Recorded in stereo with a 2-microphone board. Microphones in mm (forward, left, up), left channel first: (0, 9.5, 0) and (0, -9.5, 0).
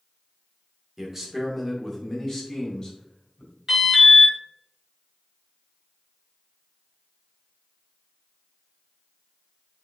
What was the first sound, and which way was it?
A man speaking, 15° right (ahead or behind).